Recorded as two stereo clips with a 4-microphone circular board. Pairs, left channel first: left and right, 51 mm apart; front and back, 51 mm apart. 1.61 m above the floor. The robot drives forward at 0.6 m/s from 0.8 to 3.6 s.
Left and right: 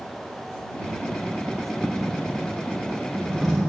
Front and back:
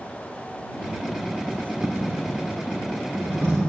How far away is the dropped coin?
About 1.2 m.